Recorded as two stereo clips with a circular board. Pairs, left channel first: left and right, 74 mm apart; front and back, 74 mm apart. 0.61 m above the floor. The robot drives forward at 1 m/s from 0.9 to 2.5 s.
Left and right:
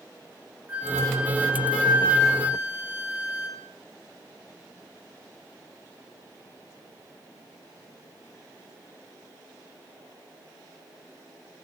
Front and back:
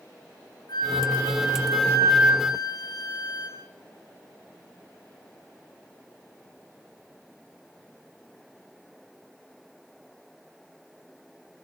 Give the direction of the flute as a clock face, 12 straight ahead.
1 o'clock.